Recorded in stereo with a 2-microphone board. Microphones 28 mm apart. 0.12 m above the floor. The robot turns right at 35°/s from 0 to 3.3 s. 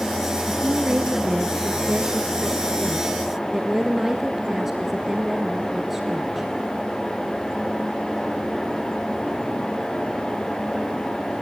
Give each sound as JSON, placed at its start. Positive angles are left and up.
{"t": 0.5, "sound": "a woman speaking", "azimuth_deg": -110, "distance_m": 1.5}